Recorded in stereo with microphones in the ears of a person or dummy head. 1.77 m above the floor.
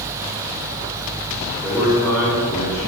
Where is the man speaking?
5° left (ahead or behind), 5.5 m; by 2.9 s 15° left (ahead or behind), 6.5 m.